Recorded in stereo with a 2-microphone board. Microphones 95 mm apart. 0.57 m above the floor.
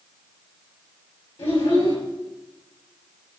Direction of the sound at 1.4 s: 75° left (ahead or behind).